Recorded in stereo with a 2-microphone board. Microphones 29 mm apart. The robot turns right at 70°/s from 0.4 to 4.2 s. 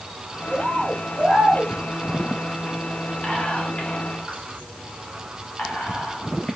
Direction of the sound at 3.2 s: 30° left (ahead or behind).